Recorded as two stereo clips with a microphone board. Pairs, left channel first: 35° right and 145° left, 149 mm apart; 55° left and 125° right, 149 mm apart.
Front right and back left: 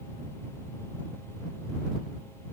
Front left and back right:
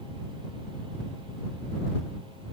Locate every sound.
Only background noise.